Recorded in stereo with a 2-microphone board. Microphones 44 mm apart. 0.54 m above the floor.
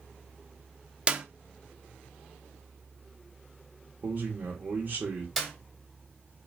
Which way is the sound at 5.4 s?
Centre (ahead or behind).